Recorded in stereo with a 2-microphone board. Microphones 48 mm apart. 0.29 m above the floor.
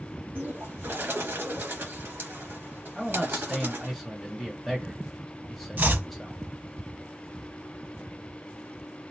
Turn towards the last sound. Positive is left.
turn(degrees=-45)  # may be behind; listen again after turning